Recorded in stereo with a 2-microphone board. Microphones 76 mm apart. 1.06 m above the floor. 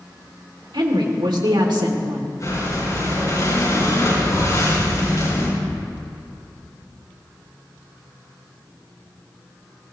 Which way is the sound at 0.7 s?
85° right.